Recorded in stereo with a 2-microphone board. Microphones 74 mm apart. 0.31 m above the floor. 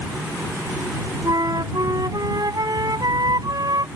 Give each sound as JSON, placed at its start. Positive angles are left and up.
{"t": 1.2, "sound": "a flute", "side_deg": -65}